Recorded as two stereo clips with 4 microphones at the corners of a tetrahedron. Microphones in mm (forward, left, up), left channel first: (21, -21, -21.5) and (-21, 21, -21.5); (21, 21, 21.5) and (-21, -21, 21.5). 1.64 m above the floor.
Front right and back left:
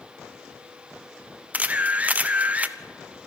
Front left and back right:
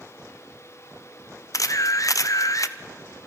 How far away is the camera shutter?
About 0.8 m.